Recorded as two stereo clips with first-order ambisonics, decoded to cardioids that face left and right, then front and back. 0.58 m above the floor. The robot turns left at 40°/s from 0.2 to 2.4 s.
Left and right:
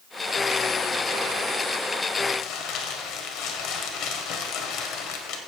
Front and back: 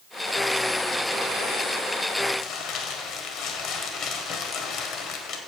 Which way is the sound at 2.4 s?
50° left.